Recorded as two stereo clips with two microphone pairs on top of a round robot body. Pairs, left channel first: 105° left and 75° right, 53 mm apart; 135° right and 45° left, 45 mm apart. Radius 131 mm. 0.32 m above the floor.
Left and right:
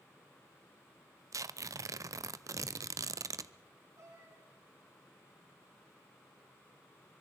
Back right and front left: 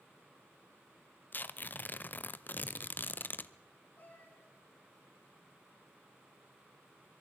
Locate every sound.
1.3 s tearing paper: 85° right, 0.6 m
4.0 s a cat meowing: 85° right, 9 m